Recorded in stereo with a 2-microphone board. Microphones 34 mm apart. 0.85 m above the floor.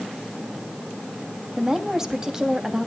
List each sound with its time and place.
1.6 s a woman speaking: 15° right (ahead or behind), 1.4 m